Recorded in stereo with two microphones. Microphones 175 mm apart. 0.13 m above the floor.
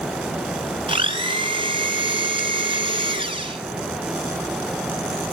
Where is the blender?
30° right (ahead or behind), 1.4 m.